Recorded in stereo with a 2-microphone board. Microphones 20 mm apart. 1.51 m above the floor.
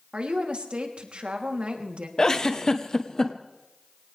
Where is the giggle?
30° left (ahead or behind), 1.2 m.